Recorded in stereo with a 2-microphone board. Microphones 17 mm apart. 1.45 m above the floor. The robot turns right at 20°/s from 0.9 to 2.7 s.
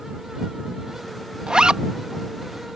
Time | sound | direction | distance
1.5 | a zipper | 55° right (ahead or behind) | ?